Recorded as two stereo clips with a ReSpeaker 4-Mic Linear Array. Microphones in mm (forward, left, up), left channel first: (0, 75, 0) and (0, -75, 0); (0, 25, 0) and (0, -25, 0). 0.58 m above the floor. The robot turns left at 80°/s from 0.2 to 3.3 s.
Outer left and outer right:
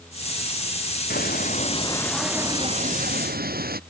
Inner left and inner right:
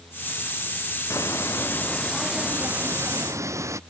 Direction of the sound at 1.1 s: 85° left.